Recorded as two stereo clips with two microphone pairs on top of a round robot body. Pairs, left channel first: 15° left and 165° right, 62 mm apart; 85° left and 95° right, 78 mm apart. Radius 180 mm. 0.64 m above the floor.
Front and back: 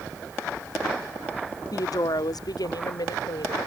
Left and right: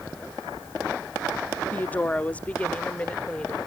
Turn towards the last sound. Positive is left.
turn(degrees=10)